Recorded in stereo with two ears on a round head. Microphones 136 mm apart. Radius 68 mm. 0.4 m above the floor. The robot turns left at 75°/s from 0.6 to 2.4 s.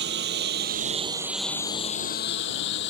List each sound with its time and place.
0.0 s a lawn mower: 85° right; by 2.9 s 85° left